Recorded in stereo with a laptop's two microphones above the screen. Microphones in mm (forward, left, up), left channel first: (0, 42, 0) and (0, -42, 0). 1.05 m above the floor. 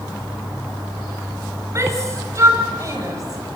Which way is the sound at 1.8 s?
35° right (ahead or behind).